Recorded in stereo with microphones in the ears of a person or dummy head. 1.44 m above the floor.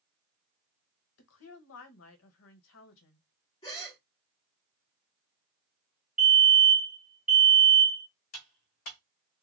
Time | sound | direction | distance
1.2 | a woman speaking | 70° left (ahead or behind) | 1.0 m
3.6 | a gasp | 25° left (ahead or behind) | 1.5 m
6.2 | a fire alarm | 5° right (ahead or behind) | 1.6 m
8.3 | cutlery clinking | 45° left (ahead or behind) | 1.0 m